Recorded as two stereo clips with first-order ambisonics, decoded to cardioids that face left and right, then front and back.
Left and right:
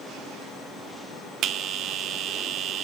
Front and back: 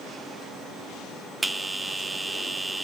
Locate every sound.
1.4 s a bell: 95° right, 0.6 m